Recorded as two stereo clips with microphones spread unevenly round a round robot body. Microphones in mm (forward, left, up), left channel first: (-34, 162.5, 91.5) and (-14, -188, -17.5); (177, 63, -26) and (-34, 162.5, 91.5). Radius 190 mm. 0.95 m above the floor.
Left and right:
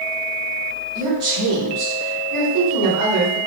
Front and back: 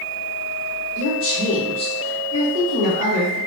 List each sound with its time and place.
0.9 s a woman speaking: 65° right, 2 m; by 3.4 s 105° right, 2 m